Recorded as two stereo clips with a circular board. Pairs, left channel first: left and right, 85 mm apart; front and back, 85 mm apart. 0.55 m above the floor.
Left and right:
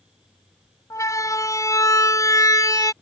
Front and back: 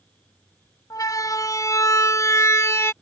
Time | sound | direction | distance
0.9 | a siren | 45° left | ?